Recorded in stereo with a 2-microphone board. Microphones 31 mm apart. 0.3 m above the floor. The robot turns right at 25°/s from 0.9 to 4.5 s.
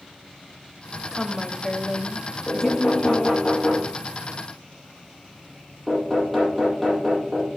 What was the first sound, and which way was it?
A woman speaking, 5° left (ahead or behind).